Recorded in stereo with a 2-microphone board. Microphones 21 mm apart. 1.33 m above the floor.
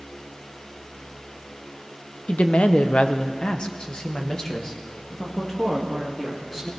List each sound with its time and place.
2.3 s a woman speaking: 65° left (ahead or behind), 0.9 m; by 6.7 s 15° left (ahead or behind), 3 m